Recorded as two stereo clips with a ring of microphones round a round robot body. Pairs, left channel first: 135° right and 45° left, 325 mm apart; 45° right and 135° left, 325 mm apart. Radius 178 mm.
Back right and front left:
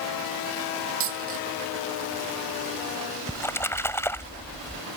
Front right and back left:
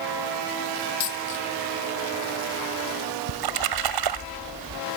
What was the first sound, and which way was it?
A dropped coin, 5° right.